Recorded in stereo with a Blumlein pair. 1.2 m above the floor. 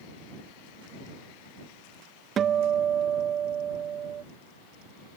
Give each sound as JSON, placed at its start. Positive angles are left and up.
{"t": 2.4, "sound": "a guitar", "azimuth_deg": -25}